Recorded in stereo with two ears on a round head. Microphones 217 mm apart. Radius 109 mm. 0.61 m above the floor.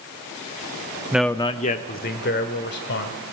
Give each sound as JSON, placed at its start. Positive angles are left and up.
{"t": 1.1, "sound": "a man speaking", "side_deg": -10, "distance_m": 0.7}